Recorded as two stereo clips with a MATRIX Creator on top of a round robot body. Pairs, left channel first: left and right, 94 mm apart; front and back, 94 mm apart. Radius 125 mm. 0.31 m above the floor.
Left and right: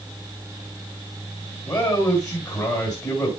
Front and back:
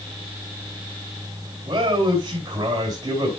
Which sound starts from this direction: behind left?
A man speaking, at 1.6 s.